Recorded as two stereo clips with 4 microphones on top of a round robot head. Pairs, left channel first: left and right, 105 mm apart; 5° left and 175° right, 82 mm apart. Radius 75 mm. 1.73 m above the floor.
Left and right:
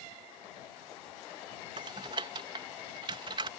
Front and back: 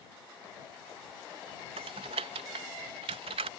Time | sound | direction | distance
1.8 | typing on a keyboard | 150° right | ?